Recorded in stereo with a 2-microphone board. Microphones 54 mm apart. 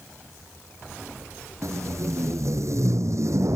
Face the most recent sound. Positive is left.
turn(degrees=-60)  # may be behind; listen again after turning